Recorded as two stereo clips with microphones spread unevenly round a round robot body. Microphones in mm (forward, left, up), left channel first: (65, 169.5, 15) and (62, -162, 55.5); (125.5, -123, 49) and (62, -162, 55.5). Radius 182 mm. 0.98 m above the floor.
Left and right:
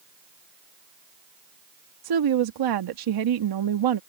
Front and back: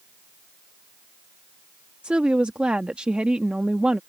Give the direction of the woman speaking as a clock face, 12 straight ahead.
2 o'clock.